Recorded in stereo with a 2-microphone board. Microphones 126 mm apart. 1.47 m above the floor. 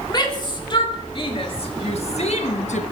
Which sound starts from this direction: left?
A shout, at 0.1 s.